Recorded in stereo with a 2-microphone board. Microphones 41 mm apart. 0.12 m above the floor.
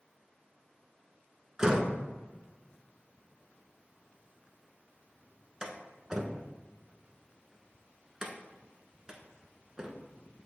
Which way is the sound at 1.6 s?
15° right (ahead or behind).